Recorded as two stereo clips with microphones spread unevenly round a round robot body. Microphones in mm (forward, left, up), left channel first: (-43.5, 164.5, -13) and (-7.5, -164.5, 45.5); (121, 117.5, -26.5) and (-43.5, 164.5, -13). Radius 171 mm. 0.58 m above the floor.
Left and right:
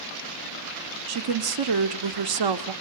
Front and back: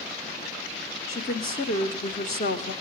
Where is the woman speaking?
65° right, 1.4 m.